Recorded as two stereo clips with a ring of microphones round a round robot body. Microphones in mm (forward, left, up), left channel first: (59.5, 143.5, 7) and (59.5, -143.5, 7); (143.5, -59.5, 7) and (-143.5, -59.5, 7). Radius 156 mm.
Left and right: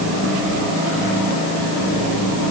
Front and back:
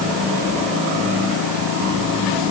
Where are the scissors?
I don't hear scissors.